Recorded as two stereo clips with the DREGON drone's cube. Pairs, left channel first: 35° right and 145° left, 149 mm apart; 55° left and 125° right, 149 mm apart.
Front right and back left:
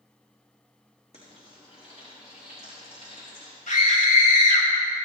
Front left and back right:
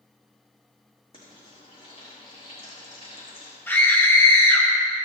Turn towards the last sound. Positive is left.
turn(degrees=-20)